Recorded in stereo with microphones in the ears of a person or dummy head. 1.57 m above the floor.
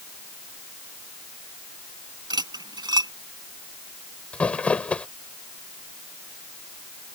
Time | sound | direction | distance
2.3 | cutlery clinking | 25° right (ahead or behind) | ?
4.3 | crumpling | 10° left (ahead or behind) | ?